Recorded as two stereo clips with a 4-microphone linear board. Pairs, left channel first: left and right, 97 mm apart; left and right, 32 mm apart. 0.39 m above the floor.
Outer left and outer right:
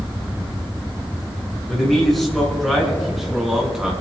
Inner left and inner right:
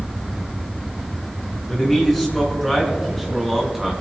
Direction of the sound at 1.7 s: 5° left (ahead or behind).